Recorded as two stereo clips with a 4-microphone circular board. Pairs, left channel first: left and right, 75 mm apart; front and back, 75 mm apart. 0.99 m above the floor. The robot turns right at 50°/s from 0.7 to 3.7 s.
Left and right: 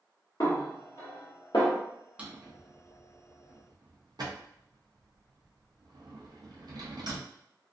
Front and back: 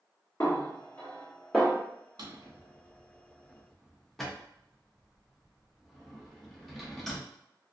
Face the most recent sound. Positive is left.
turn(degrees=-85)